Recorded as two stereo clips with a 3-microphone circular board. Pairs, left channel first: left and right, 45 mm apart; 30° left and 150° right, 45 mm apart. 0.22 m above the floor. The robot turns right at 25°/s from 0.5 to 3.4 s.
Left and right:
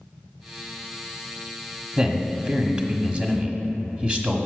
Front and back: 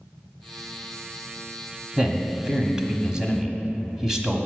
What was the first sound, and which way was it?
A man speaking, 120° right.